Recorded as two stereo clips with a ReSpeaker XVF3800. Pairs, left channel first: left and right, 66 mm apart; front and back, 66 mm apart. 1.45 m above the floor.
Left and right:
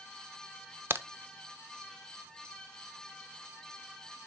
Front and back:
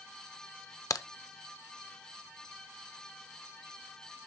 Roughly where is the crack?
Ahead right.